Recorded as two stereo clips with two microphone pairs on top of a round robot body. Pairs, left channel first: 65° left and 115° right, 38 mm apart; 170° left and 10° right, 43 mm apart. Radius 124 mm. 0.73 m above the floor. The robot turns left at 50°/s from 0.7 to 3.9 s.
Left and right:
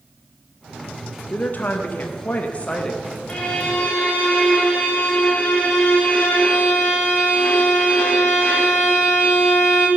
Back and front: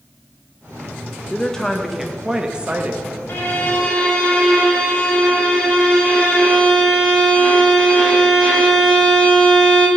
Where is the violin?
130° left, 1.5 m; by 9.9 s 100° left, 1.5 m.